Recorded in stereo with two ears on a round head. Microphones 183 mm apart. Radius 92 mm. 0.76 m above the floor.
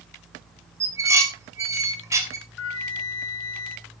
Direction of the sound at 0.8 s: 15° right (ahead or behind).